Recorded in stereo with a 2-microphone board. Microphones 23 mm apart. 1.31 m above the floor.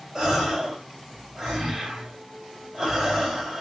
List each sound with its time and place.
0.1 s a gasp: 30° right (ahead or behind), 2.0 m